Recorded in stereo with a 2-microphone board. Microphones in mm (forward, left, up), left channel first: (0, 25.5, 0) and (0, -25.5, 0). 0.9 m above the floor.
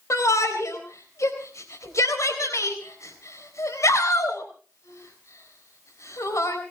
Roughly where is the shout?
Left.